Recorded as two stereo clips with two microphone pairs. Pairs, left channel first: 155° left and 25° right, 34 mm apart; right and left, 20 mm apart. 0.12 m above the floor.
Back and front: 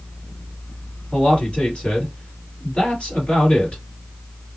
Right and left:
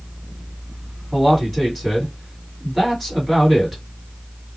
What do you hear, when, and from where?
1.1 s a man speaking: 175° right, 2.5 m